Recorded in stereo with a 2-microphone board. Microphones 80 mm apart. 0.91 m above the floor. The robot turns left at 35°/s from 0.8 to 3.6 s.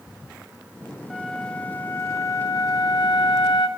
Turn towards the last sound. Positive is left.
turn(degrees=90)